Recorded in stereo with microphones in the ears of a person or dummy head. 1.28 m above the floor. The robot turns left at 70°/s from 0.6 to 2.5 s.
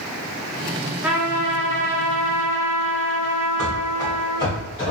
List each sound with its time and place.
1.0 s a trumpet: 5° right, 0.6 m; by 4.6 s 110° right, 0.6 m
3.6 s running footsteps: 5° left (ahead or behind), 1.5 m; by 4.9 s 25° left (ahead or behind), 1.4 m